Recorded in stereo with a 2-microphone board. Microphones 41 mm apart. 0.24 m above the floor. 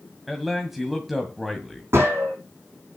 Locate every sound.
0.3 s a man speaking: 5° right (ahead or behind), 1.8 m
1.9 s a gunshot: 80° right, 5.5 m